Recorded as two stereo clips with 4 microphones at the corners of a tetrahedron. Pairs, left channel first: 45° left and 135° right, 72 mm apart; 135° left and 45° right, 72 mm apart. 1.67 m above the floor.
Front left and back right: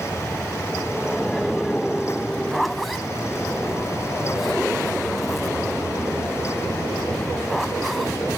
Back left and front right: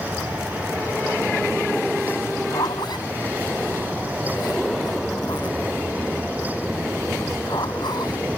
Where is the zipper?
135° left.